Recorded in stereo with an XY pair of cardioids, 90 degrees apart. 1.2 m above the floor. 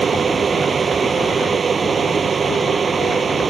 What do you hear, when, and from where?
0.0 s a fan: 40° right